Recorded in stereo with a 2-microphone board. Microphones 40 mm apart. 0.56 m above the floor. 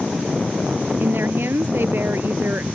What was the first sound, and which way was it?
A woman speaking, 60° right (ahead or behind).